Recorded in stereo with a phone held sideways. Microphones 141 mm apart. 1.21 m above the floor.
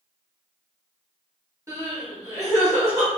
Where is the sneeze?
I don't hear a sneeze.